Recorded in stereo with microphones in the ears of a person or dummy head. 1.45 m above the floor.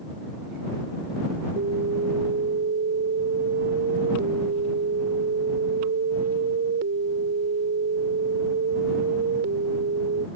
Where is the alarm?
55° right (ahead or behind).